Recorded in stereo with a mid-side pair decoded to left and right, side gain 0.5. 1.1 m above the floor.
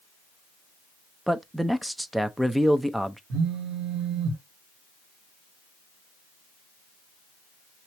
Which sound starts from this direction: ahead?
A man speaking, at 1.3 s.